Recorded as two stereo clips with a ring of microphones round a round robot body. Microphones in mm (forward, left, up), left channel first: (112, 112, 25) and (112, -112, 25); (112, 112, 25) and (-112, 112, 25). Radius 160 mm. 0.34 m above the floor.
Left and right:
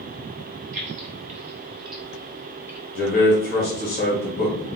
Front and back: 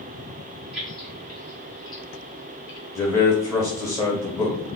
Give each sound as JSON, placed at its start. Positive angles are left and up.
{"t": 0.7, "sound": "keys jangling", "azimuth_deg": -100, "distance_m": 1.0}
{"t": 3.0, "sound": "a man speaking", "azimuth_deg": 70, "distance_m": 1.1}